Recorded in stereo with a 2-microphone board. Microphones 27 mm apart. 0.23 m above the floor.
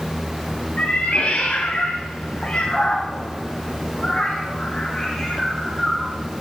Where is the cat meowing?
45° left (ahead or behind), 4.5 m; by 6.2 s 10° left (ahead or behind), 4.5 m.